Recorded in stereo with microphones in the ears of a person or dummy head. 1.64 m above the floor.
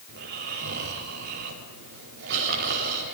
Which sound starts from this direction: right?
Snoring, at 0.1 s.